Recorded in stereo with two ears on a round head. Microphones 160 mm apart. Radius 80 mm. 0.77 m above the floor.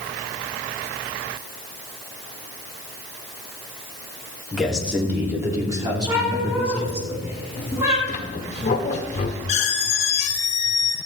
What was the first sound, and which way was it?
A man speaking, centre (ahead or behind).